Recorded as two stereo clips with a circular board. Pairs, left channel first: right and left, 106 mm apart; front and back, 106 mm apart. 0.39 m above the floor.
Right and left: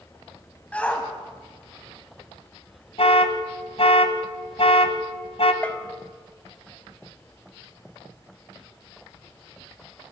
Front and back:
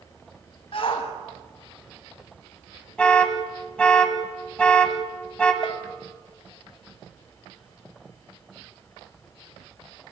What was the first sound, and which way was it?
A shout, 15° right.